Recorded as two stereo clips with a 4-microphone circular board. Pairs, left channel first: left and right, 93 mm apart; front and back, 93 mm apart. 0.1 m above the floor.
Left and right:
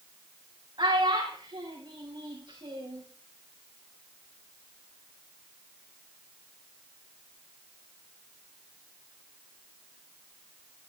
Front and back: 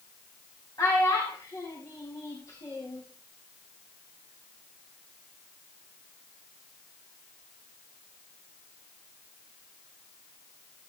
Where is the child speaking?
55° right, 4.5 m.